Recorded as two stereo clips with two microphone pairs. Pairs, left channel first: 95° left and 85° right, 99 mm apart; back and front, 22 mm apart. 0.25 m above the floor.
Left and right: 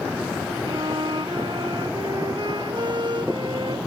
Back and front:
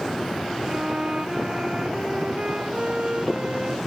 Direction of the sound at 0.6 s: 45° right.